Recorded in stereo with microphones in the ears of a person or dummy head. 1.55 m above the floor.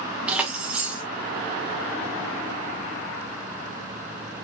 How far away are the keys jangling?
About 1.3 m.